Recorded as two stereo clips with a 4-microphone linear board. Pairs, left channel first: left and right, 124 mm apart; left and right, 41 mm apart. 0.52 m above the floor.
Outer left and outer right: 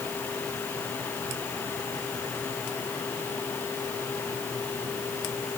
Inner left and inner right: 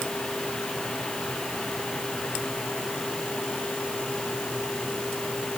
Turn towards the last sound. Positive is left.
No sound to turn to.